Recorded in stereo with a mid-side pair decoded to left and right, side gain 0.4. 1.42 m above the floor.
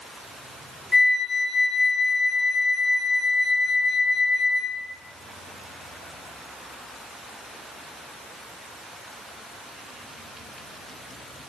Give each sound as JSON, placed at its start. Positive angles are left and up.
{"t": 0.9, "sound": "a flute", "azimuth_deg": 30, "distance_m": 0.7}